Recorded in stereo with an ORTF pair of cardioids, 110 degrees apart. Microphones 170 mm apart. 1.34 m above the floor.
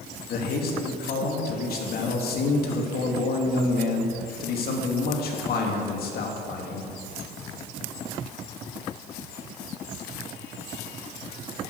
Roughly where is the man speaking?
Ahead left.